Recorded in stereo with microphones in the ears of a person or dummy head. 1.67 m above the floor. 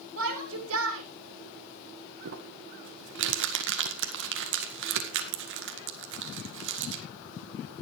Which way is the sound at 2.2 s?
70° right (ahead or behind).